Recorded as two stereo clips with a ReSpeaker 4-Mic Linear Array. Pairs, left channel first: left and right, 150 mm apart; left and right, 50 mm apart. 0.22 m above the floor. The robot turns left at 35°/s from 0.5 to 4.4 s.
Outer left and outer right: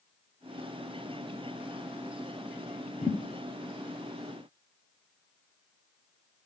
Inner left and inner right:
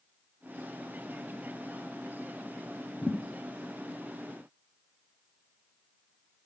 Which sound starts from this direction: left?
A thud, at 3.0 s.